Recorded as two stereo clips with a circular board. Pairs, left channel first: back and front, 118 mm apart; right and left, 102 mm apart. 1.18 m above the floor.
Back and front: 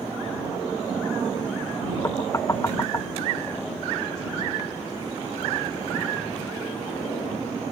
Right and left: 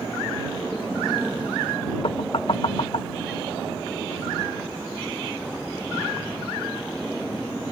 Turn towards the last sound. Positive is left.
turn(degrees=-115)